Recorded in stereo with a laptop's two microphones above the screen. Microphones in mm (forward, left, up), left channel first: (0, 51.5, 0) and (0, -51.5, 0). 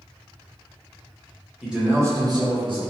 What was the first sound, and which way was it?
A man speaking, 5° right (ahead or behind).